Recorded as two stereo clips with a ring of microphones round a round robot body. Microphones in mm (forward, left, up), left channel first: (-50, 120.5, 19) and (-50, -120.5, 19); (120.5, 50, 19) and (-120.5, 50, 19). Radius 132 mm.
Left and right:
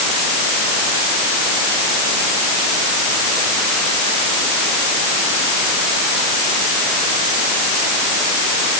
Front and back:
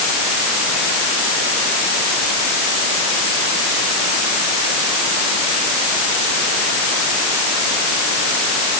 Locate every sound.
Only background noise.